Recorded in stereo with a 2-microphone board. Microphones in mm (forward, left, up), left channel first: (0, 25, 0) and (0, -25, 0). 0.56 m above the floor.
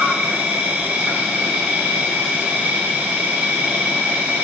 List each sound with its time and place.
0.0 s an insect: 25° right (ahead or behind), 1.0 m